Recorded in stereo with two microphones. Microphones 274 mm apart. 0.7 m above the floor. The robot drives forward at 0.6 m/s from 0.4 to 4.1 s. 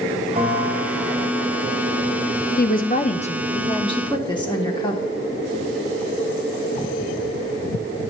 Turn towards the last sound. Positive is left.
turn(degrees=15)  # may be behind; listen again after turning